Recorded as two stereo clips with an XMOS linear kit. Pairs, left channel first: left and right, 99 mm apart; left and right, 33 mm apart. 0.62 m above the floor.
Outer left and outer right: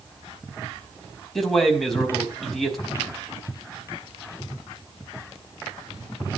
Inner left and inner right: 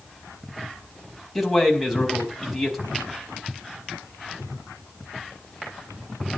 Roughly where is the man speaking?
Centre.